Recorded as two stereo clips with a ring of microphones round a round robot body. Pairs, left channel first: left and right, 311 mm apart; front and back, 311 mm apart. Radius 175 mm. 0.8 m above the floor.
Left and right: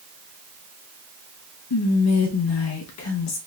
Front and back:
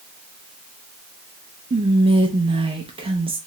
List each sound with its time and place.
1.7 s whispering: 110° left, 0.5 m